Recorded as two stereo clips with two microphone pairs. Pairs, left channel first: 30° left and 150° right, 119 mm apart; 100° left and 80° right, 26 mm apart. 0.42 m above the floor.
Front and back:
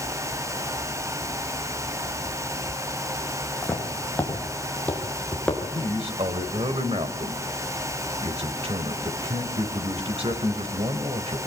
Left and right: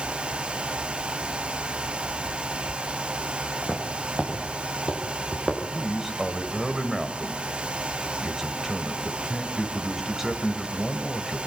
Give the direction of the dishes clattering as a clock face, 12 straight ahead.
No dishes clattering in this recording.